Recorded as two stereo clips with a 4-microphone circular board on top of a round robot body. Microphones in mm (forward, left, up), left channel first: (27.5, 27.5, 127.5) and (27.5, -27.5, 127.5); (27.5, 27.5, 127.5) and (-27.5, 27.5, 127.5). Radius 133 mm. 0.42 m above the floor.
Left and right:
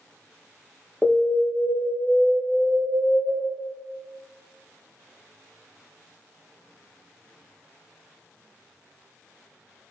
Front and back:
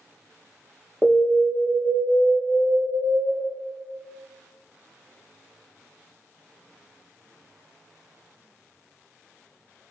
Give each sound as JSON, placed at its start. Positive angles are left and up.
{"t": 1.0, "sound": "an alarm", "azimuth_deg": 130, "distance_m": 0.9}